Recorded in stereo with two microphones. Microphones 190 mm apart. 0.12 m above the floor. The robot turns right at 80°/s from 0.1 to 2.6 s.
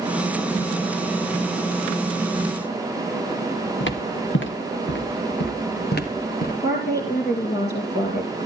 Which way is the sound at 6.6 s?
60° left (ahead or behind).